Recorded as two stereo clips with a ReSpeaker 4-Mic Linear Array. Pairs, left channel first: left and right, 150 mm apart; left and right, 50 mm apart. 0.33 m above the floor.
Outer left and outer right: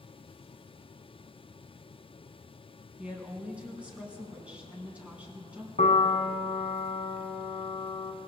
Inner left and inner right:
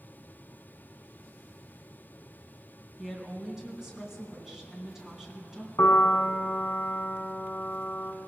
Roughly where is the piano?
Left.